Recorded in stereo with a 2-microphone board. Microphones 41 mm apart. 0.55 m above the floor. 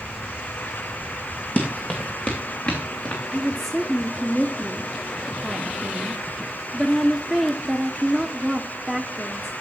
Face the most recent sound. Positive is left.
turn(degrees=5)  # may be behind; listen again after turning